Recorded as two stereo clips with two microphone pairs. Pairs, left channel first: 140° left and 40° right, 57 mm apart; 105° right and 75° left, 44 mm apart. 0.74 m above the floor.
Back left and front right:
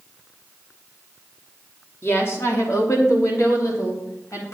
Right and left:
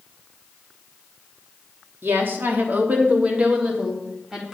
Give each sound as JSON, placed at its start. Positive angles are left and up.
{"t": 2.0, "sound": "a woman speaking", "azimuth_deg": 95, "distance_m": 1.1}